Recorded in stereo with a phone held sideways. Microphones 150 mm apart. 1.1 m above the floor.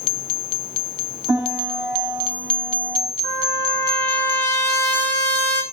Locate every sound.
1.3 s a piano: 10° right (ahead or behind), 8.5 m
3.2 s a trumpet: 15° left (ahead or behind), 4 m